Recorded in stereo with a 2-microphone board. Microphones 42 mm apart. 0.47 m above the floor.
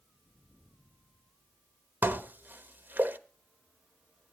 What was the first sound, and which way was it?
Dishes clattering, 50° right (ahead or behind).